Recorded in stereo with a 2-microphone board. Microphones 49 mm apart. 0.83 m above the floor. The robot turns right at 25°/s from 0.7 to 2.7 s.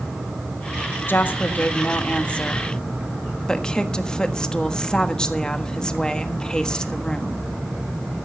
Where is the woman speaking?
120° left, 1.3 m; by 7.4 s 160° left, 1.3 m.